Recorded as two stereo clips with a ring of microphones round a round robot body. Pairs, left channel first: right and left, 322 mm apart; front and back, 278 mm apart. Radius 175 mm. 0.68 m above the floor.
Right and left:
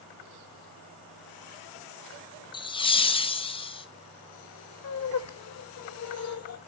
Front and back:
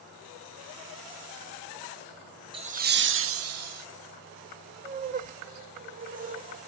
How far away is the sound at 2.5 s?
About 0.7 m.